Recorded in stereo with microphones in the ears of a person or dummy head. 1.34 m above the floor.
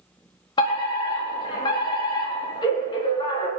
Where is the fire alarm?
30° left (ahead or behind), 4 m.